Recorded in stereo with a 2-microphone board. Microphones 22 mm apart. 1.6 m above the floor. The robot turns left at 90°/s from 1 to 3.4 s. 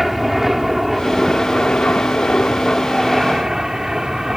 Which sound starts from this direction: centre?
An aircraft, at 0.0 s.